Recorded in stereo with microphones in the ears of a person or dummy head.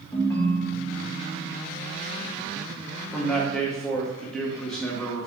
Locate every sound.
0.1 s a ringtone: 20° left (ahead or behind), 0.6 m
3.1 s a man speaking: 10° left (ahead or behind), 0.9 m